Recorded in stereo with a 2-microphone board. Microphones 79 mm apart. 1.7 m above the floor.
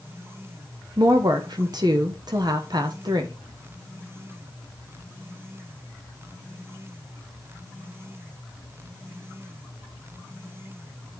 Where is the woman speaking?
55° right (ahead or behind), 0.9 m.